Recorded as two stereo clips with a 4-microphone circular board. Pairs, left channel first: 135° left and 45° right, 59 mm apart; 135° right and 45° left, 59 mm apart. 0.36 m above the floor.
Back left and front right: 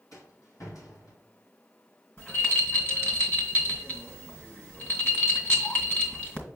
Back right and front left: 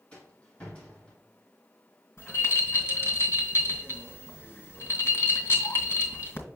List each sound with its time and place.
0.1 s a rattle: 155° left, 2 m
2.2 s a rattle: 175° right, 2 m